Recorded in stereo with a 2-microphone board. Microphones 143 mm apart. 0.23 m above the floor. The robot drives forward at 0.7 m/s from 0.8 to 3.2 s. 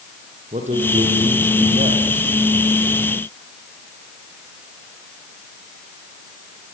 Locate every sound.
0.5 s a man speaking: 55° right (ahead or behind), 7.5 m; by 2.3 s 50° right (ahead or behind), 8 m